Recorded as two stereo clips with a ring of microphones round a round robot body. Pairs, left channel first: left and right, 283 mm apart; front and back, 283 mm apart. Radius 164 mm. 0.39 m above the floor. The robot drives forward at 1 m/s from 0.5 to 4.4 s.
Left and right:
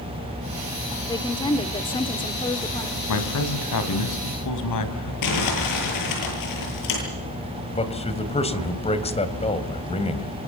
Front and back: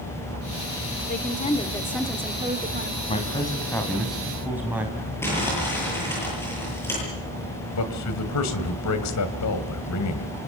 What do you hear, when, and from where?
1.1 s a woman speaking: 25° left, 1.7 m; by 3.0 s 155° left, 1.7 m
3.1 s a man speaking: 70° left, 3 m; by 5.1 s 95° left, 3 m
5.2 s crumpling: 85° left, 10 m
7.7 s a man speaking: 25° left, 3 m